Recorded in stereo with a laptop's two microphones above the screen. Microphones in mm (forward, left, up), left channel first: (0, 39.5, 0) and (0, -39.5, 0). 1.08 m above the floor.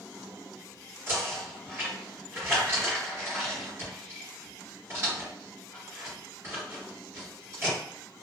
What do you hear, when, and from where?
1.1 s knocking: 30° right (ahead or behind), 1.6 m